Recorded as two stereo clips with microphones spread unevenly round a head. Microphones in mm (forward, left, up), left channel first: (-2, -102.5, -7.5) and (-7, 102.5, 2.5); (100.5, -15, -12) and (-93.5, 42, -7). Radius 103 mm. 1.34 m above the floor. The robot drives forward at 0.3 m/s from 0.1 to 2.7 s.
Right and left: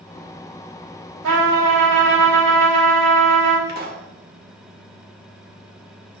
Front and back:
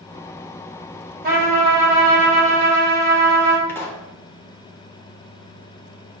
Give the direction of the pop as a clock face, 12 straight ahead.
10 o'clock.